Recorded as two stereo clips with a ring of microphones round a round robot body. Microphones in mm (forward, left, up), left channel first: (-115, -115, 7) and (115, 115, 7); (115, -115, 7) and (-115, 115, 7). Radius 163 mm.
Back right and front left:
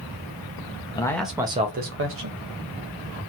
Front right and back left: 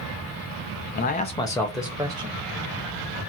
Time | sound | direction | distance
0.9 | a man speaking | 70° right | 0.7 m